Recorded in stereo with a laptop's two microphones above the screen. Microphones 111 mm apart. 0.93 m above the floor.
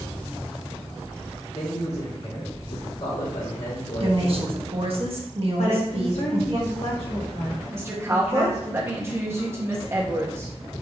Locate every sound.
1.5 s a man speaking: 65° left (ahead or behind), 2.0 m
4.0 s a woman speaking: 55° right (ahead or behind), 1.2 m
5.6 s a woman speaking: 70° left (ahead or behind), 1.5 m
7.7 s a woman speaking: 25° right (ahead or behind), 1.3 m